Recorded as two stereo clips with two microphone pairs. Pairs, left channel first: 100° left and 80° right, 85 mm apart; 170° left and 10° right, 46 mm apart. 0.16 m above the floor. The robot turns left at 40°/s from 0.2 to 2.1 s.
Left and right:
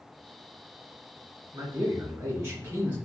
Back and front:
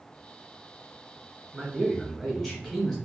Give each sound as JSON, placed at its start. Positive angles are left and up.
{"t": 1.5, "sound": "a man speaking", "azimuth_deg": -85, "distance_m": 1.6}